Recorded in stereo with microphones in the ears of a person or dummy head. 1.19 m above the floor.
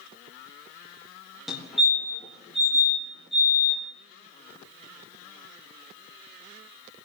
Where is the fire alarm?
Centre (ahead or behind), 3.5 m.